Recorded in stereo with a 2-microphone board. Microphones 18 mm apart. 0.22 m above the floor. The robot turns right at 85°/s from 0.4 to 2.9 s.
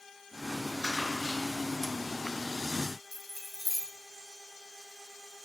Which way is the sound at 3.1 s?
5° right (ahead or behind).